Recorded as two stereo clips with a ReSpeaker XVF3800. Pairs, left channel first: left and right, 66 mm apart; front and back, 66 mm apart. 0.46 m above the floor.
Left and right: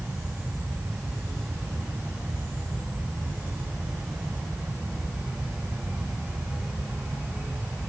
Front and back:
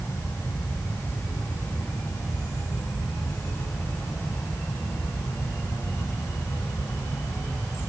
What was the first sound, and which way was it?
Only background noise.